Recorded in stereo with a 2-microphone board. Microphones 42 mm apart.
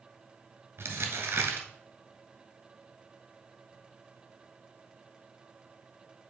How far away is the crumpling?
About 1.7 m.